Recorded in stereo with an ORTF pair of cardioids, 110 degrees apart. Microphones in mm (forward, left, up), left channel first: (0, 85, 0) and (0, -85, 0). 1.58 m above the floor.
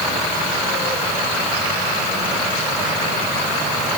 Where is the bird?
No bird in this recording.